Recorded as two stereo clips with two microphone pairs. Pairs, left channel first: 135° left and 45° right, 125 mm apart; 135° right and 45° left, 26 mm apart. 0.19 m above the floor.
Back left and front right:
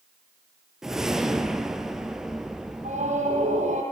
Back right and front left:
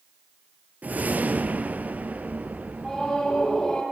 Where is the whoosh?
40° left, 1.7 m.